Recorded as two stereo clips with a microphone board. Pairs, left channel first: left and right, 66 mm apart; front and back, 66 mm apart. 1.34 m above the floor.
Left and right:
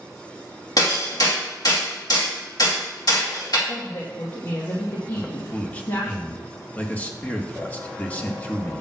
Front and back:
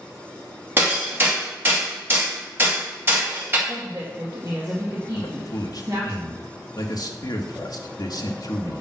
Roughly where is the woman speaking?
Behind left.